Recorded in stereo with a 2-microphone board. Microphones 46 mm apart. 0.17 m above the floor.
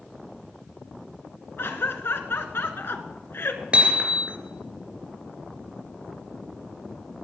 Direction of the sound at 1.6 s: 55° left (ahead or behind).